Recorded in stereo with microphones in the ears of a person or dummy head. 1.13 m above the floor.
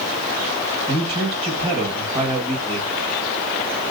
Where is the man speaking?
25° right (ahead or behind), 1.7 m.